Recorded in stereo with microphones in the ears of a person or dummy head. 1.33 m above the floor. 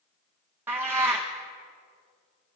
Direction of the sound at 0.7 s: 15° right (ahead or behind).